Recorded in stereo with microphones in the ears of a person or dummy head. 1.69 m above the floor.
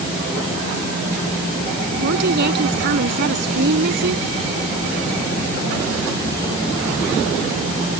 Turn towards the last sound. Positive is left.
turn(degrees=-60)  # may be behind; listen again after turning